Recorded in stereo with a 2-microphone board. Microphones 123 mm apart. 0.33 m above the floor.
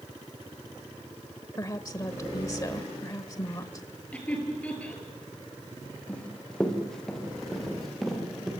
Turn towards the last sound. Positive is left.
turn(degrees=0)  # may be behind; listen again after turning